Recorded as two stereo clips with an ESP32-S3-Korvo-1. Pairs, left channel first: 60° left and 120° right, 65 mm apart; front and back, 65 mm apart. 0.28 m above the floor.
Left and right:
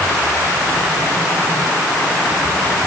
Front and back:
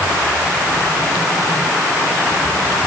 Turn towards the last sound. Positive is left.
No sound to turn to.